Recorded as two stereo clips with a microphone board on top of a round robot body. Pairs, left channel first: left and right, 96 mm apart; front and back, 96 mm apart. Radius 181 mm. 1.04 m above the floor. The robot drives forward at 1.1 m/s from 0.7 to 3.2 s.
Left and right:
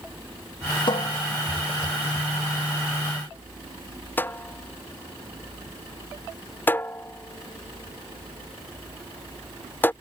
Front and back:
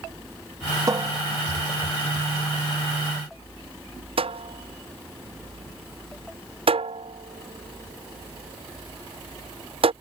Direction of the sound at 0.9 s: 125° left.